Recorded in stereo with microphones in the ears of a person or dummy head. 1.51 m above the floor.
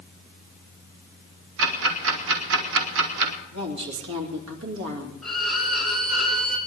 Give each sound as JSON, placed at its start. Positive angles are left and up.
{"t": 1.6, "sound": "ticking", "side_deg": -75, "distance_m": 2.0}
{"t": 3.5, "sound": "a woman speaking", "side_deg": -75, "distance_m": 3.0}
{"t": 5.2, "sound": "a violin", "side_deg": 0, "distance_m": 2.5}